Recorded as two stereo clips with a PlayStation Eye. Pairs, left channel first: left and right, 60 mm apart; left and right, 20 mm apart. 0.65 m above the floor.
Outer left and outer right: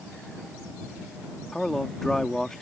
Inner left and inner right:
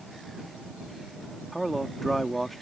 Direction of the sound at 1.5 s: 5° left (ahead or behind).